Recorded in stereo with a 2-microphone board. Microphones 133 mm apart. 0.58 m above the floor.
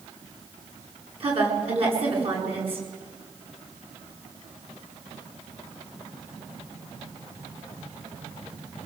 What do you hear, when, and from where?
1.2 s a woman speaking: 45° right (ahead or behind), 9 m